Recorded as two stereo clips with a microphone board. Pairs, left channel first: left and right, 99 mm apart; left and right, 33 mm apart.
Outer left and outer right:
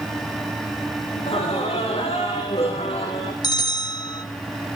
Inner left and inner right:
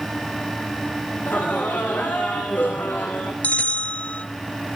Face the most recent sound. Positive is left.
turn(degrees=45)  # may be behind; listen again after turning